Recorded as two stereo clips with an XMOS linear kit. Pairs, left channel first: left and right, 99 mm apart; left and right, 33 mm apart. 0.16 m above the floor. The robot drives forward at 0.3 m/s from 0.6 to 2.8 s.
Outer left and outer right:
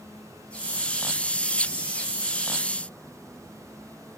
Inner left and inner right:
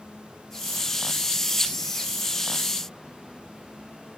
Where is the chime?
No chime in this recording.